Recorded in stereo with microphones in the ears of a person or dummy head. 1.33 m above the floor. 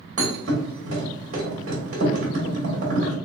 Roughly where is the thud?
Right.